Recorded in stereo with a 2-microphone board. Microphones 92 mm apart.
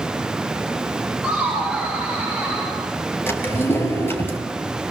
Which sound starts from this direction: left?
A drawer, at 3.3 s.